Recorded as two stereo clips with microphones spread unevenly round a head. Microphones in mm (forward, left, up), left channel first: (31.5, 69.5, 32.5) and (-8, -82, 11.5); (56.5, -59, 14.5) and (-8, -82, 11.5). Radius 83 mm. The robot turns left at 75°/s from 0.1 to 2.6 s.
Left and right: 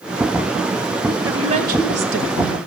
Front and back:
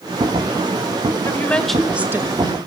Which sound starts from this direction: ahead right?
A woman speaking, at 1.2 s.